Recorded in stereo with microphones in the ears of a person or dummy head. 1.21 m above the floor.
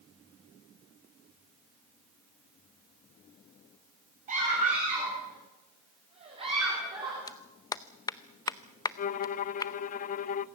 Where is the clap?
20° left (ahead or behind), 0.6 m.